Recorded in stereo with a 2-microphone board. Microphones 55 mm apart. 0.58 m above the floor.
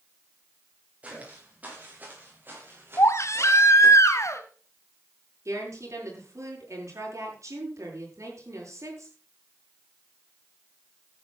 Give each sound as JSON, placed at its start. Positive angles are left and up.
{"t": 1.0, "sound": "footsteps", "side_deg": -25, "distance_m": 8.0}
{"t": 3.0, "sound": "a baby crying", "side_deg": 60, "distance_m": 2.0}
{"t": 5.5, "sound": "a woman speaking", "side_deg": -65, "distance_m": 9.0}